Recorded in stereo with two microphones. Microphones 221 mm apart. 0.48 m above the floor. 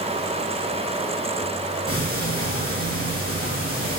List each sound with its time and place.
1.9 s ticking: 75° left (ahead or behind), 4.5 m